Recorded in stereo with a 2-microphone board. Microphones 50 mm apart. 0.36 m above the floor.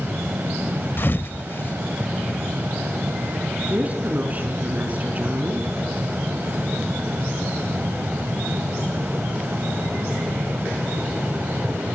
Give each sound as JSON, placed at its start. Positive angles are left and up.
{"t": 1.0, "sound": "a thud", "side_deg": 45, "distance_m": 0.5}
{"t": 3.7, "sound": "a woman speaking", "side_deg": -35, "distance_m": 5.0}